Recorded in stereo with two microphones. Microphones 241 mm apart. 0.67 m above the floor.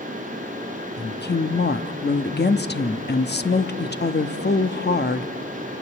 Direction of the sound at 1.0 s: 45° left (ahead or behind).